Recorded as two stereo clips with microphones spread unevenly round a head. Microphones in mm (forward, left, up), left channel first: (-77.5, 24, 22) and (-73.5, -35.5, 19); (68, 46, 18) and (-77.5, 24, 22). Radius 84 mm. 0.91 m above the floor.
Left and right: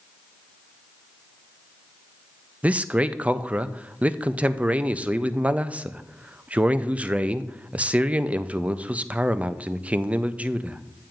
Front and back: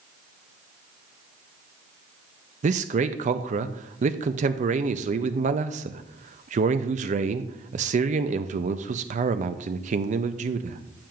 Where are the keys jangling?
I don't hear keys jangling.